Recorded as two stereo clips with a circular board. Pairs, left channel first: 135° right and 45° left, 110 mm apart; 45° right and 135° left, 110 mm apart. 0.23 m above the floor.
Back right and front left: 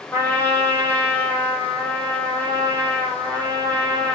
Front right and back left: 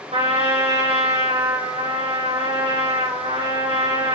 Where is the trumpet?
155° left, 6 m.